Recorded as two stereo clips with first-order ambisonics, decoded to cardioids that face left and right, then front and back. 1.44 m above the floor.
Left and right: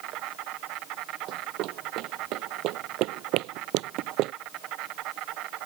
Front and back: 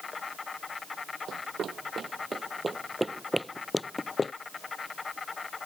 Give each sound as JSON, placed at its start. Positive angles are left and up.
{"t": 0.0, "sound": "an insect", "azimuth_deg": -70}
{"t": 1.3, "sound": "running footsteps", "azimuth_deg": -125}